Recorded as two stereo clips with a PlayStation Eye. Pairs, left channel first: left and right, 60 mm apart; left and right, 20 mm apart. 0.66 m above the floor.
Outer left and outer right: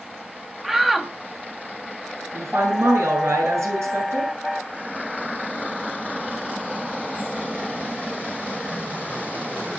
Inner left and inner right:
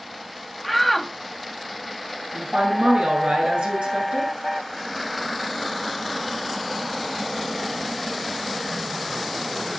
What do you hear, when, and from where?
0.6 s a shout: 5° right (ahead or behind), 1.0 m
2.3 s a woman speaking: 55° right (ahead or behind), 8.5 m